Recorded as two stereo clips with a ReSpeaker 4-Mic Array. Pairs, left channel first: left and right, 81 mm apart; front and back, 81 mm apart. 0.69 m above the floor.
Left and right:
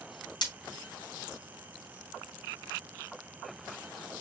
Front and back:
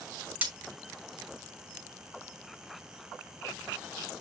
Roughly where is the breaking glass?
Left.